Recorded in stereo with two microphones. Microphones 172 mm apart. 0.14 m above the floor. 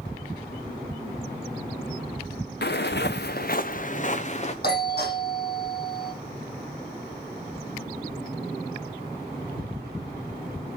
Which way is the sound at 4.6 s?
65° left (ahead or behind).